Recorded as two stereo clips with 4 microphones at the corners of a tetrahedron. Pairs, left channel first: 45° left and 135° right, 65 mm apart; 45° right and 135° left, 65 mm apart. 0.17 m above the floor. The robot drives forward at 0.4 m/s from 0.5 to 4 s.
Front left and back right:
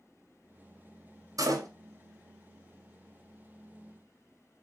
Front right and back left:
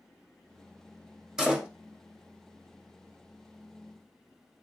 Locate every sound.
1.4 s a door slam: 145° right, 1.3 m; by 1.7 s 150° right, 1.4 m